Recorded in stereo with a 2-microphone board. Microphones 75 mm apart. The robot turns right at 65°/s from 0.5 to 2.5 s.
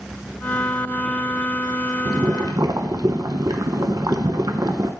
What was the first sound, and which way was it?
Boiling, 55° right (ahead or behind).